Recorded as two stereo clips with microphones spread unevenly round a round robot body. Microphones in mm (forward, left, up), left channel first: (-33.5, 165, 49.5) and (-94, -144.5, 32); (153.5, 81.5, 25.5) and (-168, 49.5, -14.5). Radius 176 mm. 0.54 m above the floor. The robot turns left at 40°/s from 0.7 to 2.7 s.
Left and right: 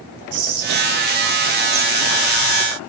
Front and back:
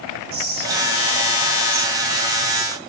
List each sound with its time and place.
0.3 s whispering: 115° right, 3 m; by 2.8 s 165° left, 3 m